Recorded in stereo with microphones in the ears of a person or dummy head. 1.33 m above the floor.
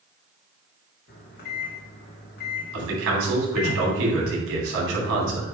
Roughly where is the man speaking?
Right.